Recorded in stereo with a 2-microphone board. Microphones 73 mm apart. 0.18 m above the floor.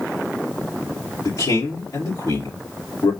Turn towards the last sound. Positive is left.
turn(degrees=60)  # may be behind; listen again after turning